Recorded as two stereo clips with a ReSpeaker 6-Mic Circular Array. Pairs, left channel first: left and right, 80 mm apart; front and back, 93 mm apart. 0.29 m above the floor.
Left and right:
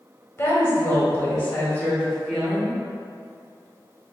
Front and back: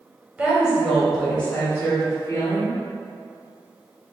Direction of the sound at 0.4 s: 115° left.